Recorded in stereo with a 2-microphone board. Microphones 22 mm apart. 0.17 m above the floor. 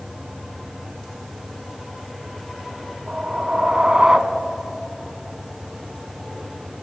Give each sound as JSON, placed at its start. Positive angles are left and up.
{"t": 3.1, "sound": "a whoosh", "side_deg": -35, "distance_m": 0.5}